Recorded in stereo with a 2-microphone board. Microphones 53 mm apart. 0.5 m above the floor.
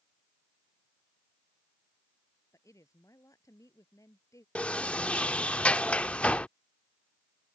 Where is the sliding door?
25° left (ahead or behind).